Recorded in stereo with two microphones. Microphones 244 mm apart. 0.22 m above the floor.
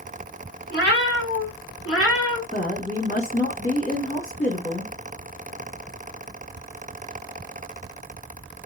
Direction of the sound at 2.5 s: 35° left (ahead or behind).